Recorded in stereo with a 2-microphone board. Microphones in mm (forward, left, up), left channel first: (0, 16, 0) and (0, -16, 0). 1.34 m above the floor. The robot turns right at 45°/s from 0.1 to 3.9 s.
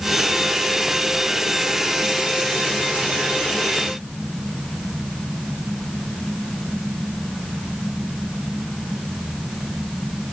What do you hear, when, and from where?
Only background noise.